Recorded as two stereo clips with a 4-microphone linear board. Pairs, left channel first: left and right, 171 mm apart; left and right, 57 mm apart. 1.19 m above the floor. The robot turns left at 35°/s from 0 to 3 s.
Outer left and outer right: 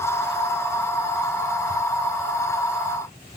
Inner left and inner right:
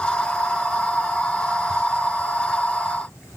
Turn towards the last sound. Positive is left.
No sound to turn to.